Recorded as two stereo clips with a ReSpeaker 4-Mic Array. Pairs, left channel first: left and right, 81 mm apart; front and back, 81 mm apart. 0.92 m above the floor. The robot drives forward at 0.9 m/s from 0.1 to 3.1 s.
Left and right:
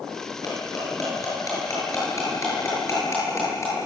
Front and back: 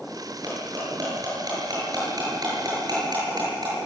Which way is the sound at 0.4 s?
135° left.